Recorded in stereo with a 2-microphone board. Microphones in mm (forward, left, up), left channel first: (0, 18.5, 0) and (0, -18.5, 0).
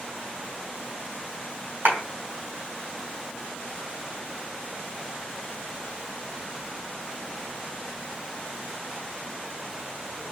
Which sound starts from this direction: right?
A clap, at 1.9 s.